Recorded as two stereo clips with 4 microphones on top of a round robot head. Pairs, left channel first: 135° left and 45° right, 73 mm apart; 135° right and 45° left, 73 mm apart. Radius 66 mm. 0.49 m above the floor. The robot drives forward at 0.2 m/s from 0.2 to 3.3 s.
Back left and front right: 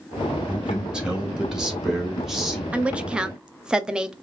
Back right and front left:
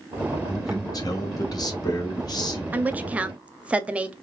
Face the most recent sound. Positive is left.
turn(degrees=10)